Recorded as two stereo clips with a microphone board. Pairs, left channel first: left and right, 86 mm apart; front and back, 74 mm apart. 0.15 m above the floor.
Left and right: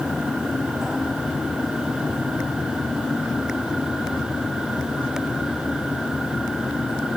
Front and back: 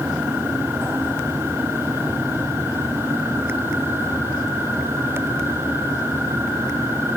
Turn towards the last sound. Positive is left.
No sound to turn to.